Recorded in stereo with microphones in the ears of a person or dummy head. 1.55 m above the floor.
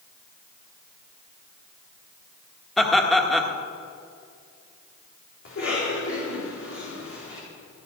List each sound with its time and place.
2.8 s laughter: centre (ahead or behind), 1.7 m
5.5 s a cough: 60° left (ahead or behind), 4 m